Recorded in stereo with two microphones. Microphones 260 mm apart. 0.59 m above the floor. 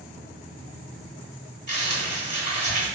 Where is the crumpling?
40° left (ahead or behind), 1.5 m.